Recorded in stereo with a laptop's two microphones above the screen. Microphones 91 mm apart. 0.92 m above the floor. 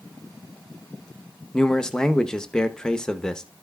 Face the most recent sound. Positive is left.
turn(degrees=10)  # may be behind; listen again after turning